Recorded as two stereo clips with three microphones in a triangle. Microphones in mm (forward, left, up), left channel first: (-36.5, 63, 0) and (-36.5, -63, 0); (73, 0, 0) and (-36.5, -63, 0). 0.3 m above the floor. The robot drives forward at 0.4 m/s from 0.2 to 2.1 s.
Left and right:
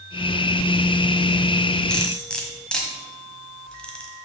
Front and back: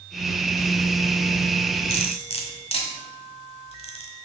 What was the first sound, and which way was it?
Cutlery clinking, 10° left.